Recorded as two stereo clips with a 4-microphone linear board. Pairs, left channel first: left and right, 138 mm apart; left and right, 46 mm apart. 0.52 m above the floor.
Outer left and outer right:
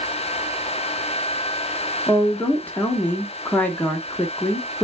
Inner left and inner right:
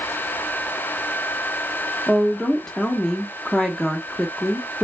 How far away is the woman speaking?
About 0.6 m.